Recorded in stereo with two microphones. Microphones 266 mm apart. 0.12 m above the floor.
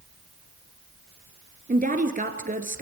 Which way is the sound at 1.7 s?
30° right (ahead or behind).